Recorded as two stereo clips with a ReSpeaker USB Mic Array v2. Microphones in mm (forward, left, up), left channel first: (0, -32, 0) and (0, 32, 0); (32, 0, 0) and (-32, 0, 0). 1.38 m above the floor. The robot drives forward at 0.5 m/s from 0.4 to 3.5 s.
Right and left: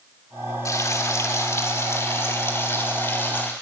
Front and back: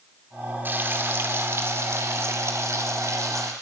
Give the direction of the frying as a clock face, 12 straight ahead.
4 o'clock.